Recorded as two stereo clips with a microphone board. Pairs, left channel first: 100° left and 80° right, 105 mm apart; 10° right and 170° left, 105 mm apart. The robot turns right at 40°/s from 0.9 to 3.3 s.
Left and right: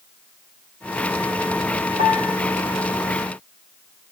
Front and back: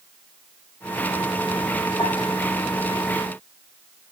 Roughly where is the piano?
Ahead right.